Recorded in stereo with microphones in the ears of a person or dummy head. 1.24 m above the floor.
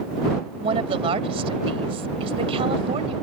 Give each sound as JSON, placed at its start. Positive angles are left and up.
{"t": 0.6, "sound": "a woman speaking", "side_deg": -30}